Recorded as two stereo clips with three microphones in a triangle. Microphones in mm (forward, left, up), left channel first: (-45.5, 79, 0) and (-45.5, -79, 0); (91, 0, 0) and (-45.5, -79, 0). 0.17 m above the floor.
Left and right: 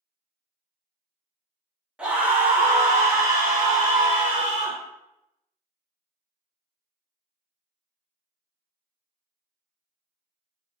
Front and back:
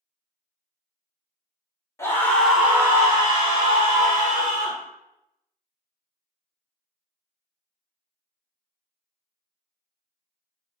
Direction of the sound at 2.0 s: 15° right.